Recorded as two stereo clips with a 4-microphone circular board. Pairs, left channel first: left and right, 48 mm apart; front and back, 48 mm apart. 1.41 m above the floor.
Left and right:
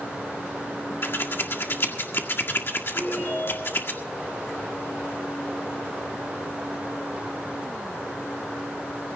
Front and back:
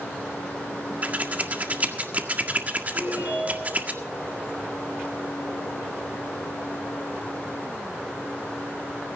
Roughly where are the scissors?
Behind left.